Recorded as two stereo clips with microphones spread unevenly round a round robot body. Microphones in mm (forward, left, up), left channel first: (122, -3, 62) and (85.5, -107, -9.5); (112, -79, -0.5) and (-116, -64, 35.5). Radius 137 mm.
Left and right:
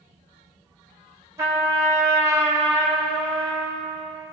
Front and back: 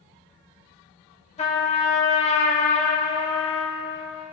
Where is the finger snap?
No finger snap in this recording.